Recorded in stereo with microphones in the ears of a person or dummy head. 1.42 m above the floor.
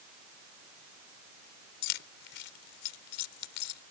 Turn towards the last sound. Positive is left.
turn(degrees=65)  # may be behind; listen again after turning